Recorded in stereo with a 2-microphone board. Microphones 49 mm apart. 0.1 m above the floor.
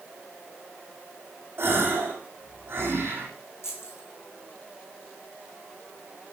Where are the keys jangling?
65° left (ahead or behind), 3.5 m.